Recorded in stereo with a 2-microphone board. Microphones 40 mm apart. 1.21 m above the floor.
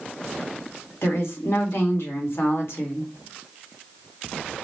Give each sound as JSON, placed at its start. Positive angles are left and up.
{"t": 1.0, "sound": "a woman speaking", "side_deg": 75, "distance_m": 1.4}